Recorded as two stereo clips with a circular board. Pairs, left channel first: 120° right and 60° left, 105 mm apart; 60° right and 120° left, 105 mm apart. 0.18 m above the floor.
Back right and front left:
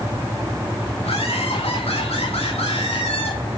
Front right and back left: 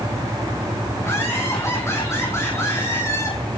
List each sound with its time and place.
1.0 s laughter: 125° right, 7 m; by 3.4 s 120° right, 6 m